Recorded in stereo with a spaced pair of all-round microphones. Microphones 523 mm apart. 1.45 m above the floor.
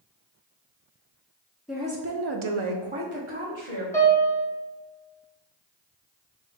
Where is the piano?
5° left (ahead or behind), 0.9 m.